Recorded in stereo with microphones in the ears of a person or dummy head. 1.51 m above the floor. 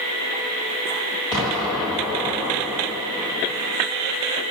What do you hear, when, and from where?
1.3 s an explosion: 25° left (ahead or behind), 1.4 m